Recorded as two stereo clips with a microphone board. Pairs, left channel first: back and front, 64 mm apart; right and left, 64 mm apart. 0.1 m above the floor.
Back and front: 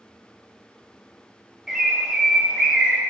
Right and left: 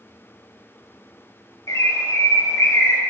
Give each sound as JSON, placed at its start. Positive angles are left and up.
{"t": 1.7, "sound": "a bird", "azimuth_deg": -80, "distance_m": 0.9}